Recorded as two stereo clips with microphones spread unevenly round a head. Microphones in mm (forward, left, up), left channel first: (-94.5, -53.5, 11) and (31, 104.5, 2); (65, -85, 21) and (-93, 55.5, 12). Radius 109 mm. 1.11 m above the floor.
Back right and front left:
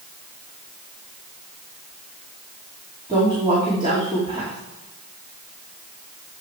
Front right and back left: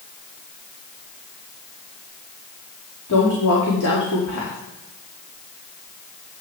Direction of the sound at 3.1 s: 15° right.